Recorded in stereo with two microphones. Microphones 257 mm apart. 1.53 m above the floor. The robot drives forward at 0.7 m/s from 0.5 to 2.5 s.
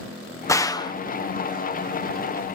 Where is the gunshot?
15° left (ahead or behind); by 0.9 s 20° left (ahead or behind).